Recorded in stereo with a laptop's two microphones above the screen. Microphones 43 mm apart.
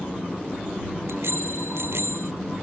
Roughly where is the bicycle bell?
Right.